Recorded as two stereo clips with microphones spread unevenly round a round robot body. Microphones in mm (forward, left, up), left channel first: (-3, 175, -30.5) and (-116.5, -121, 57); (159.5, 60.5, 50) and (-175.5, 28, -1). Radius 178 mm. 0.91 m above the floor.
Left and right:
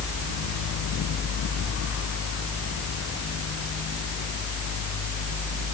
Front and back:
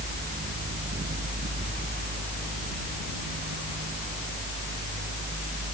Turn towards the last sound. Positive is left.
No sound to turn to.